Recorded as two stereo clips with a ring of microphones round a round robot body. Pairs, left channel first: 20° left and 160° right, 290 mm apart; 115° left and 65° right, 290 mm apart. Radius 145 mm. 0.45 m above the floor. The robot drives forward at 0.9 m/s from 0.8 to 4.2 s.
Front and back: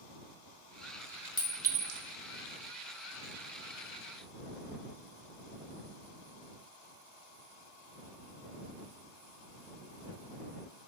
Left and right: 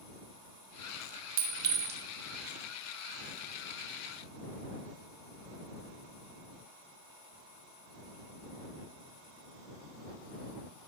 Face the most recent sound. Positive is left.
turn(degrees=-175)